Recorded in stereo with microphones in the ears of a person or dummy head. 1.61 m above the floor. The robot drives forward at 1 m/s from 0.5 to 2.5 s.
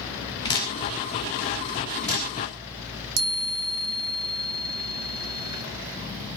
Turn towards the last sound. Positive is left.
turn(degrees=-85)